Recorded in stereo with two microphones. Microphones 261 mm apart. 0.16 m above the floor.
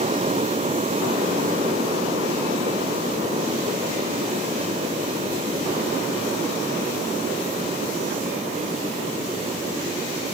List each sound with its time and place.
Only background noise.